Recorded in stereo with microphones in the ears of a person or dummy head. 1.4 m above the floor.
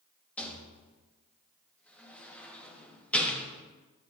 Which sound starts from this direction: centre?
A rattle, at 0.4 s.